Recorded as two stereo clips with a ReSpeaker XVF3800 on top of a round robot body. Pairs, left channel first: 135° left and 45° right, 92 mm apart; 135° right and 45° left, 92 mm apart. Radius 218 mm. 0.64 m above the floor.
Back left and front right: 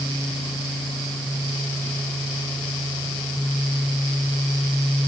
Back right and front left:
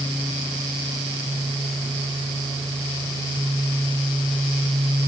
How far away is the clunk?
I don't hear a clunk.